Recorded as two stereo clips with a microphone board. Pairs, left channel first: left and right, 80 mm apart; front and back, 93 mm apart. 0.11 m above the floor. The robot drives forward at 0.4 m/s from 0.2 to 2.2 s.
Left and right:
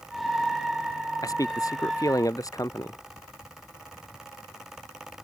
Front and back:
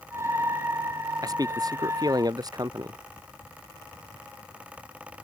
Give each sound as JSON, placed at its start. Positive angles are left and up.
{"t": 1.2, "sound": "a man speaking", "azimuth_deg": 135}